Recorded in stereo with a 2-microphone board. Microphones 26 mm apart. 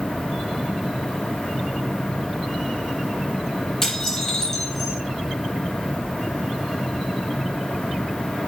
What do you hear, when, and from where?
3.8 s dishes clattering: 20° left (ahead or behind), 8 m